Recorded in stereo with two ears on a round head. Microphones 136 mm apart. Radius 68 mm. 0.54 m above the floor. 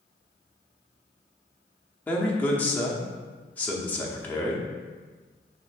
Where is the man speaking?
10° left (ahead or behind), 0.7 m.